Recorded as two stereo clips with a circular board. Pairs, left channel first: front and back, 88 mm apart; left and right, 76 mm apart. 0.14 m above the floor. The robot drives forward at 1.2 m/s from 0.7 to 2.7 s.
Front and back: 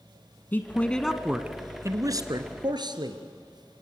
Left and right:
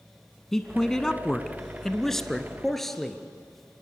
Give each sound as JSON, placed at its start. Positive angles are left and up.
{"t": 0.5, "sound": "a man speaking", "azimuth_deg": 15, "distance_m": 1.3}